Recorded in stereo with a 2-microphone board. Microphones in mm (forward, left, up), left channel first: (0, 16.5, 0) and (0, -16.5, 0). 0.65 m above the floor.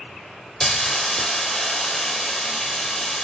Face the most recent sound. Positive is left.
turn(degrees=10)  # may be behind; listen again after turning